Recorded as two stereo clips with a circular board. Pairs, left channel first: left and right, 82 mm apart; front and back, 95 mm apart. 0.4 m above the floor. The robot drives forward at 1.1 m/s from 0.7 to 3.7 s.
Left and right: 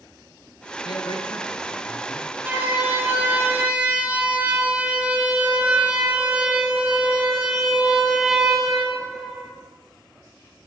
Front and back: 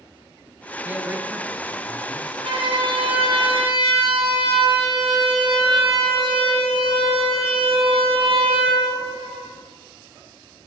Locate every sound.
0.8 s a man speaking: 110° left, 6.5 m; by 2.3 s 120° left, 7 m
2.4 s a siren: 155° right, 9.5 m; by 9.5 s 175° right, 7.5 m